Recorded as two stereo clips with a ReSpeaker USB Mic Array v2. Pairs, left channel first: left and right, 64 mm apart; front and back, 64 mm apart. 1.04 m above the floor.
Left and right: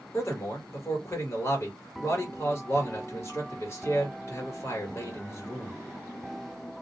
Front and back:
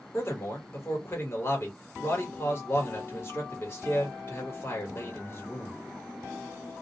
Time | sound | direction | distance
0.1 | a man speaking | 45° left | 1.2 m